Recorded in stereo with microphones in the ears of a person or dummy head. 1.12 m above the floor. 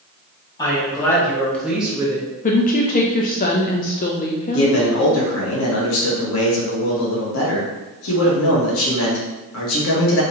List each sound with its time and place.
0.6 s a woman speaking: 20° left (ahead or behind), 2.0 m; by 2.3 s 35° right (ahead or behind), 0.8 m
2.4 s a woman speaking: 35° left (ahead or behind), 0.6 m
4.5 s a man speaking: 75° left (ahead or behind), 1.5 m